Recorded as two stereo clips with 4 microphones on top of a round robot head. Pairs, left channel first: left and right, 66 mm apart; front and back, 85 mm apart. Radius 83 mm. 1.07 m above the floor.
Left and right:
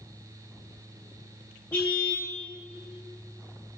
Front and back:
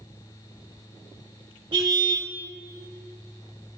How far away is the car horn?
About 2.5 m.